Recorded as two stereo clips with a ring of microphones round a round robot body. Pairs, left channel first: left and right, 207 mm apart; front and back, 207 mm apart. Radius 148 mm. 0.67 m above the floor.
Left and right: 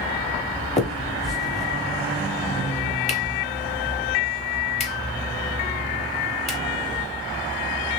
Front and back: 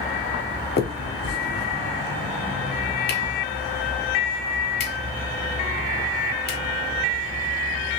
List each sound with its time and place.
0.8 s a finger snap: 35° left, 1.5 m